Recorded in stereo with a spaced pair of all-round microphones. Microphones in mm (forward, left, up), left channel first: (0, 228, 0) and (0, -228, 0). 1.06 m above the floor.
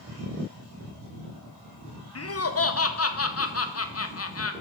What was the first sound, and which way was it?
Laughter, 35° left (ahead or behind).